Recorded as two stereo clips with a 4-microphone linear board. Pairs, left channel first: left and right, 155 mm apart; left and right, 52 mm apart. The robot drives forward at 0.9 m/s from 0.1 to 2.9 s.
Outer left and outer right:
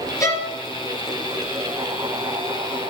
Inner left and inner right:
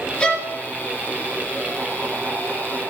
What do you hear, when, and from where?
0.2 s a violin: 20° left (ahead or behind), 2.5 m